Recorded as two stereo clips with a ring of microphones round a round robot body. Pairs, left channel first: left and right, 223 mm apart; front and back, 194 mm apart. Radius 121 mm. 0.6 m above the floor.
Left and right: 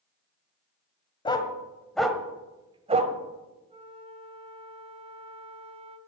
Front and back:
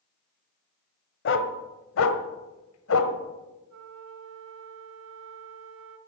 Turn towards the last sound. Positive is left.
turn(degrees=-155)